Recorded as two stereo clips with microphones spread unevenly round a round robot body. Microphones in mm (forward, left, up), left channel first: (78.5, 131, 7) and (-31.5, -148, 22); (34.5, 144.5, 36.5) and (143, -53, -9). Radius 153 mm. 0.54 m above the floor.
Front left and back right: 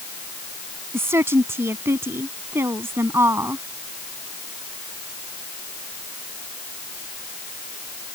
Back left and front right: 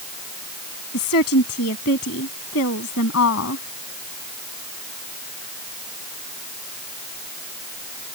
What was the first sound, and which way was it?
A woman speaking, 165° left.